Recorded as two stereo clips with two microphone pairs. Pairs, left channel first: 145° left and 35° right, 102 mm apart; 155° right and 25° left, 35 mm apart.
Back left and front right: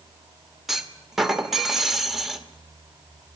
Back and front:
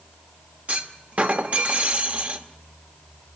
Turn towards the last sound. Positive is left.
turn(degrees=55)